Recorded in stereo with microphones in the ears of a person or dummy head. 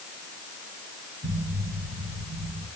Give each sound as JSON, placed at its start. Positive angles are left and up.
{"t": 1.2, "sound": "an explosion", "side_deg": -45, "distance_m": 5.5}